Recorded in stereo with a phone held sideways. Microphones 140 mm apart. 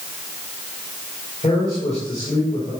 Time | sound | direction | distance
1.4 | a man speaking | 45° left (ahead or behind) | 4.5 m